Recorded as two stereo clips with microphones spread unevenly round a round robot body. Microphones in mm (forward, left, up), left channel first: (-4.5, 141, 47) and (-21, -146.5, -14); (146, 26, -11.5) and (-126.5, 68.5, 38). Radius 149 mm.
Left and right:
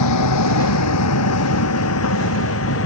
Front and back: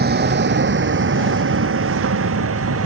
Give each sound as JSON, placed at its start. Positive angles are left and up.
{"t": 0.0, "sound": "a vehicle", "azimuth_deg": 115}